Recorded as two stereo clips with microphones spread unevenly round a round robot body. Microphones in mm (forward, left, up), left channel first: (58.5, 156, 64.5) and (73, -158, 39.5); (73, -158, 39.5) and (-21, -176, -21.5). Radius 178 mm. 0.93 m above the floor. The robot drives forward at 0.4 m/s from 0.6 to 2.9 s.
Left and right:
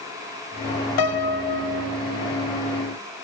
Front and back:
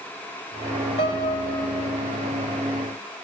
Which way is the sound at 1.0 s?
80° left.